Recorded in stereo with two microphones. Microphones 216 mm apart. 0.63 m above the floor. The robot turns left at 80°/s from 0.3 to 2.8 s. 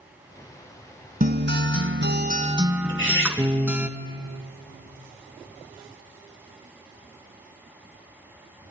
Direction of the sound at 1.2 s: 45° right.